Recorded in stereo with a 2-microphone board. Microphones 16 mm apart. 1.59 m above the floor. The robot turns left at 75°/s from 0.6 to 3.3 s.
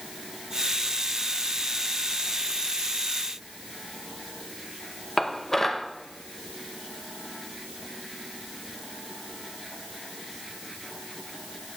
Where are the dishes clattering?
25° left (ahead or behind), 1.0 m.